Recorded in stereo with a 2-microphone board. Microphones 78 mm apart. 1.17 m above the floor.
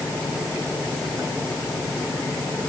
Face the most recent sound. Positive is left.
No sound to turn to.